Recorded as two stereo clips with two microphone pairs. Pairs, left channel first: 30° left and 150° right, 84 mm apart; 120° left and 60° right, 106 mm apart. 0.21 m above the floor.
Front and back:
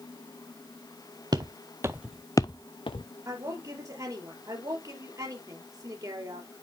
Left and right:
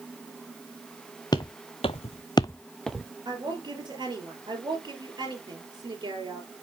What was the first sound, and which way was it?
Footsteps, 175° left.